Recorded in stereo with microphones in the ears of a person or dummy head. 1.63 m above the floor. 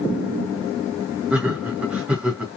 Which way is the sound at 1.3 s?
10° right (ahead or behind).